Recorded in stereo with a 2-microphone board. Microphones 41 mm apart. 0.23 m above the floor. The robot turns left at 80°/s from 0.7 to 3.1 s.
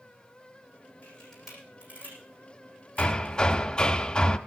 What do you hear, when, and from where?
1.0 s a camera shutter: 35° left (ahead or behind), 8.5 m; by 3.4 s 50° right (ahead or behind), 8.5 m
3.0 s hammering: 25° left (ahead or behind), 0.7 m